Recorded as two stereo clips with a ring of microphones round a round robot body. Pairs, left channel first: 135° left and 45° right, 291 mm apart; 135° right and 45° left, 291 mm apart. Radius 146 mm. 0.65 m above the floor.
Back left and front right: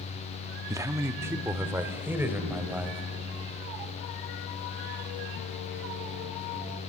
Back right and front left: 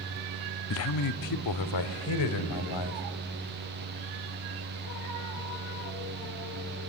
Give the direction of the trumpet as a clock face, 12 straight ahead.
No trumpet in this recording.